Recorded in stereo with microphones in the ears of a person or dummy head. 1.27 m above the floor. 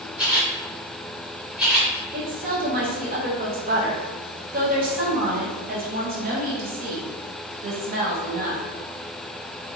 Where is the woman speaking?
40° right (ahead or behind), 0.7 m.